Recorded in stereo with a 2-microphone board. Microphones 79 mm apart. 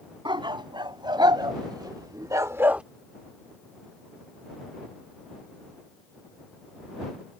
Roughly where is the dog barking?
Right.